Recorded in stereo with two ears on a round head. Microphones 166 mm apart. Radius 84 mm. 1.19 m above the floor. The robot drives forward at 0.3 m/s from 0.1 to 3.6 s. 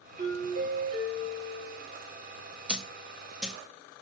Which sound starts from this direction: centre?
A dropped coin, at 2.7 s.